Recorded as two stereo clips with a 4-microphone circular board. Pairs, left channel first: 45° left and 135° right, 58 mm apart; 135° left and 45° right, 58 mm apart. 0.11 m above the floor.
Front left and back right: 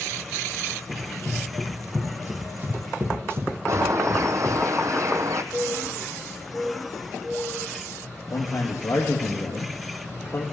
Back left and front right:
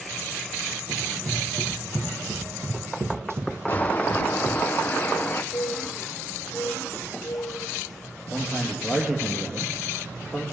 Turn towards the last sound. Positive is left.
turn(degrees=25)